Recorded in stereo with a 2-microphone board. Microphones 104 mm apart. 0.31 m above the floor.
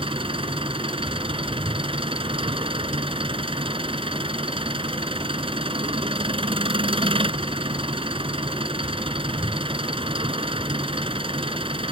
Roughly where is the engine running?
Right.